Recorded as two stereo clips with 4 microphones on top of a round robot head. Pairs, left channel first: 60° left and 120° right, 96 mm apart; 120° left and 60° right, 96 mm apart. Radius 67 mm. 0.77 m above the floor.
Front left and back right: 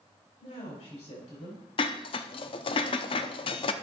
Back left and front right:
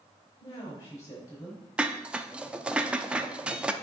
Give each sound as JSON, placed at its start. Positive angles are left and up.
{"t": 0.4, "sound": "a woman speaking", "azimuth_deg": 65, "distance_m": 4.5}
{"t": 1.8, "sound": "dishes clattering", "azimuth_deg": 25, "distance_m": 0.6}